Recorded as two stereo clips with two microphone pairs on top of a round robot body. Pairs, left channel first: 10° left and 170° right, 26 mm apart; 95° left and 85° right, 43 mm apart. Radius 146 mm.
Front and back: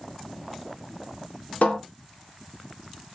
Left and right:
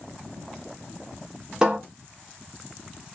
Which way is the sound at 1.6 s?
15° right.